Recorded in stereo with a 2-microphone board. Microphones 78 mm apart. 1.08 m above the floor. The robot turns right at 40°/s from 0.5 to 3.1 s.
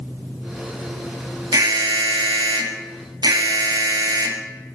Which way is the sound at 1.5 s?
125° right.